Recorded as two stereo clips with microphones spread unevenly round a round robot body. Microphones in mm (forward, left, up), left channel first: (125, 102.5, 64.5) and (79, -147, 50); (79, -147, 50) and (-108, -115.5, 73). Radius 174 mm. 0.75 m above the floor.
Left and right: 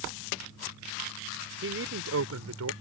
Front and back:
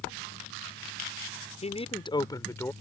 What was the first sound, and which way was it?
A man speaking, 65° right.